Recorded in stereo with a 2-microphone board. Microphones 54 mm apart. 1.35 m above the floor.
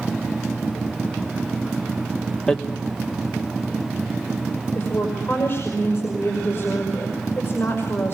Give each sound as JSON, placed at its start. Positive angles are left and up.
{"t": 2.5, "sound": "hammering", "side_deg": 10, "distance_m": 1.4}
{"t": 4.8, "sound": "a woman speaking", "side_deg": 45, "distance_m": 5.5}